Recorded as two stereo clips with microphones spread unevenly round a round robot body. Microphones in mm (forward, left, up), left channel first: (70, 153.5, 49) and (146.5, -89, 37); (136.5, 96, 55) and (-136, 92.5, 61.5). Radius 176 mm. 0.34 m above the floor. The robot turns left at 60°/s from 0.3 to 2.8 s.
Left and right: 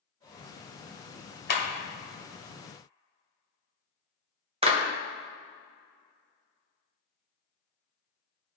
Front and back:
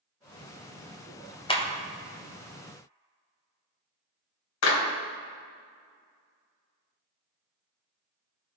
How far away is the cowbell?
No cowbell in this recording.